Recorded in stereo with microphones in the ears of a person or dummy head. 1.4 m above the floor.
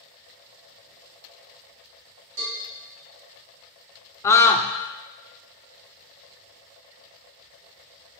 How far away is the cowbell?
About 3 m.